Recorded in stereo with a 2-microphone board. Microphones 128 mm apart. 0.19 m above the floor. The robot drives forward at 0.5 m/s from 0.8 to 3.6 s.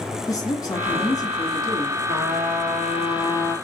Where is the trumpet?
65° right (ahead or behind), 2.5 m; by 3.5 s 60° right (ahead or behind), 3 m.